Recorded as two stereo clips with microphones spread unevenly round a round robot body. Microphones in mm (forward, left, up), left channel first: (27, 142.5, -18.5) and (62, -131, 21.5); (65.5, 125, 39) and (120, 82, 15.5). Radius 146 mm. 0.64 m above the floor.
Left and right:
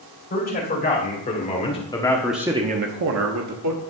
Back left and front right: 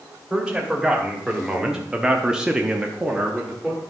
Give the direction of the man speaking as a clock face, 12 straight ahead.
11 o'clock.